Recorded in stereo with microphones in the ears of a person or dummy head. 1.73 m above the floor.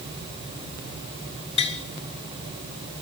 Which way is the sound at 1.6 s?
30° left (ahead or behind).